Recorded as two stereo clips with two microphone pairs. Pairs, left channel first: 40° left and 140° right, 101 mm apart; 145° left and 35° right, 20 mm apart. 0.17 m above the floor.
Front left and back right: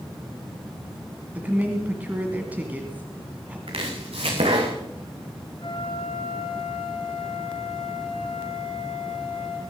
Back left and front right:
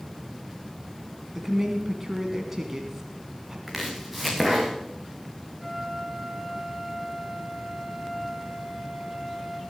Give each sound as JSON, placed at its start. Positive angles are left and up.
{"t": 1.4, "sound": "a woman speaking", "azimuth_deg": -85, "distance_m": 1.6}
{"t": 3.7, "sound": "chopping", "azimuth_deg": -125, "distance_m": 3.5}
{"t": 5.6, "sound": "a flute", "azimuth_deg": 50, "distance_m": 2.5}